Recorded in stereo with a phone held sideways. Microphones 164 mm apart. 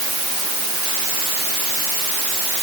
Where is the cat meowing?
No cat meowing in this recording.